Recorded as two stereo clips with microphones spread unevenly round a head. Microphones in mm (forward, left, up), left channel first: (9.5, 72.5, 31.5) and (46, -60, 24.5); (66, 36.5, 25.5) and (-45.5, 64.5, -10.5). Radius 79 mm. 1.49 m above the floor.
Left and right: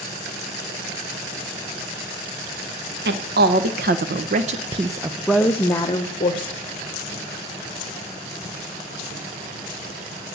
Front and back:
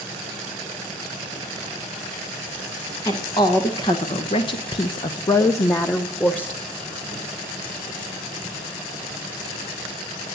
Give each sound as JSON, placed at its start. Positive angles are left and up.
{"t": 3.0, "sound": "a woman speaking", "azimuth_deg": -75, "distance_m": 1.4}